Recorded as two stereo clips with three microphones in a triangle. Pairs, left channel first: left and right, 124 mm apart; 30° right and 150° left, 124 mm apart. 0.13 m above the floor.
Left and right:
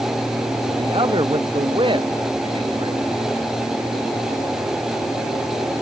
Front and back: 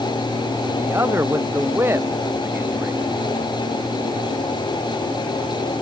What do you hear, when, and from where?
0.8 s a man speaking: 140° right